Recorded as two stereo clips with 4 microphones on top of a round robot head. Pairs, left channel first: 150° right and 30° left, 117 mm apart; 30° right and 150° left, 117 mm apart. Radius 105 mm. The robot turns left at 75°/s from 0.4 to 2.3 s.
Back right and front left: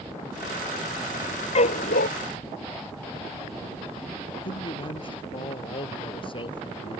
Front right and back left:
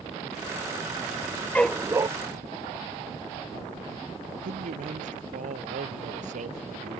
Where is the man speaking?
165° left.